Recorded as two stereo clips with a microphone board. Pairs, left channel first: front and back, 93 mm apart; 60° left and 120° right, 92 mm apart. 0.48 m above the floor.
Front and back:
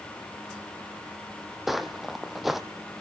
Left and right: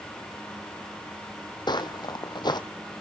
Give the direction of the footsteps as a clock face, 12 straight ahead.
9 o'clock.